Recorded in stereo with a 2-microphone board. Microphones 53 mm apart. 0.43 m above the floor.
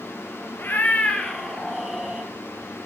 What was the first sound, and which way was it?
A cat meowing, 45° left (ahead or behind).